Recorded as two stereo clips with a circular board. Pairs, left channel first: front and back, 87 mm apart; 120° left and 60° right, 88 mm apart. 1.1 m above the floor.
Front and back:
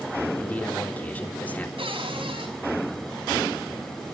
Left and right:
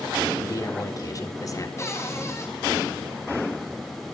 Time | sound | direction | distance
0.4 | a man speaking | 70° left | 3.5 m
1.8 | a cupboard door | 175° left | 6 m